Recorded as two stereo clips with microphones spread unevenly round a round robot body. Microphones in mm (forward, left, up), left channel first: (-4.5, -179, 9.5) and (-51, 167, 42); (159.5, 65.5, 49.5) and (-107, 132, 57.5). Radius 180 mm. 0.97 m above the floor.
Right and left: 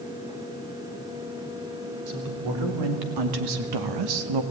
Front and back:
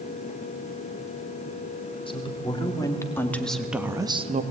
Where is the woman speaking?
55° left, 3.5 m; by 4.4 s 105° left, 1.4 m.